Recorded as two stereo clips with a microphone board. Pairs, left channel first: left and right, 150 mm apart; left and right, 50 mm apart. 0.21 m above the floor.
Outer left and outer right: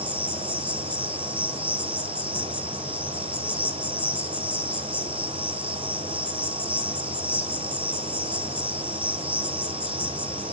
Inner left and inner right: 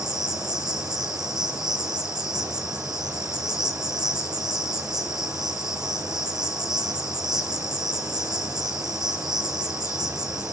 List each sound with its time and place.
0.0 s an insect: 10° right (ahead or behind), 1.9 m